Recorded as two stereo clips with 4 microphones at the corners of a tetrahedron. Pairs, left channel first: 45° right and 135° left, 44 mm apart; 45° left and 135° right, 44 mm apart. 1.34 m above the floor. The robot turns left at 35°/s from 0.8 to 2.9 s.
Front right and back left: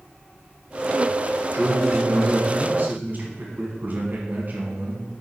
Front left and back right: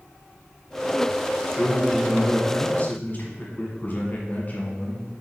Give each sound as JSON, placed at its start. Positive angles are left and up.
{"t": 1.5, "sound": "a man speaking", "azimuth_deg": 140, "distance_m": 1.3}